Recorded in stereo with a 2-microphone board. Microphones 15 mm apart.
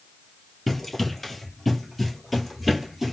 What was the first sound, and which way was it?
Running footsteps, 20° left (ahead or behind).